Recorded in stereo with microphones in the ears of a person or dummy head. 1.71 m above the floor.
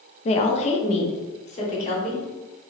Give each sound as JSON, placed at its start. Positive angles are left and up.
{"t": 0.2, "sound": "a woman speaking", "side_deg": 40, "distance_m": 0.5}